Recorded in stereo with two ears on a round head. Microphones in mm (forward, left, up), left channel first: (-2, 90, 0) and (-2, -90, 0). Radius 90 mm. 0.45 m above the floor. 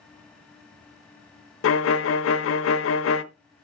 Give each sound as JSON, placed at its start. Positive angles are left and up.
{"t": 1.6, "sound": "a violin", "side_deg": 65, "distance_m": 0.8}